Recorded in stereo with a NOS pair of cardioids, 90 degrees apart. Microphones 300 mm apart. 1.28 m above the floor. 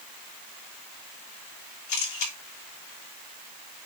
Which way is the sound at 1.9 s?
65° left.